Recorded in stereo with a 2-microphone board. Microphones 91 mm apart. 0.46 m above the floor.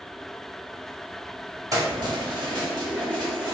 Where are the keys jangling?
40° right (ahead or behind), 0.9 m; by 3.5 s 50° right (ahead or behind), 1.9 m.